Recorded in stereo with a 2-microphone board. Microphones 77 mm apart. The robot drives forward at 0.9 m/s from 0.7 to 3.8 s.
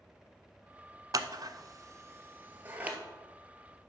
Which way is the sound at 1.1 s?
55° right (ahead or behind).